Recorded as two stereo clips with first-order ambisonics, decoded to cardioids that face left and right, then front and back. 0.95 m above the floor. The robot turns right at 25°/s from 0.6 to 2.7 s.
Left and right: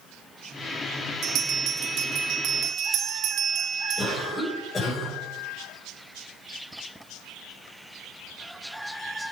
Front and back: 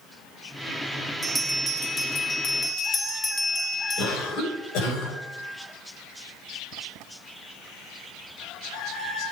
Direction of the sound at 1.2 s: 100° right.